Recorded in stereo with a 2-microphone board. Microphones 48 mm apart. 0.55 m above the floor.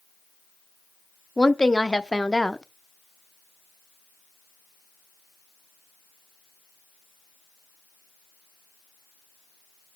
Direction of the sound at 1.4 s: 15° left (ahead or behind).